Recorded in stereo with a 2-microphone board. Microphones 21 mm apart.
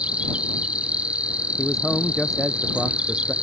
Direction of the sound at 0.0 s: 65° right (ahead or behind).